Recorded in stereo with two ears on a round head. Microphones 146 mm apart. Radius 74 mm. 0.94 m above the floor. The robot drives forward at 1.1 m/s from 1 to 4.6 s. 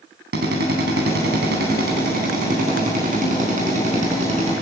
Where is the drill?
70° right (ahead or behind), 5.5 m; by 4.5 s 45° right (ahead or behind), 8 m.